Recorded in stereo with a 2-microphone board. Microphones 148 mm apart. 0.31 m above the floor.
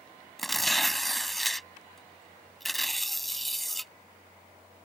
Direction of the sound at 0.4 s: Centre (ahead or behind).